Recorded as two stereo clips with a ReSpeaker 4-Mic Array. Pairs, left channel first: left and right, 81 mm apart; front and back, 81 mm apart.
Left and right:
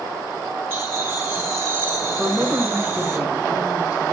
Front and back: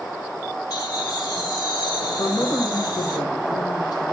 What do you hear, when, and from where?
0.7 s laughter: 20° right, 3 m
2.2 s a man speaking: 15° right, 2.5 m